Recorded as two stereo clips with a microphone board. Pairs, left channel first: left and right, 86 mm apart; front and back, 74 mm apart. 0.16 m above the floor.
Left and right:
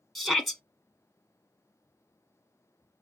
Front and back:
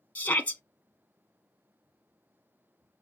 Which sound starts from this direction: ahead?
A shout, at 0.1 s.